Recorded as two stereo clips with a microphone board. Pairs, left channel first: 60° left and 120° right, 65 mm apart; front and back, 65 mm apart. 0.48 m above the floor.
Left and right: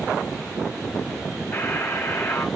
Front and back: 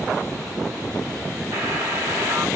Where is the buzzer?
120° left, 4.5 m.